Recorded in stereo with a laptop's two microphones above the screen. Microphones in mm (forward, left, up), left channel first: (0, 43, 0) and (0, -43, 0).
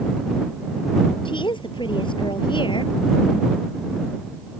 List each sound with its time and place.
1.2 s a woman speaking: 70° left (ahead or behind)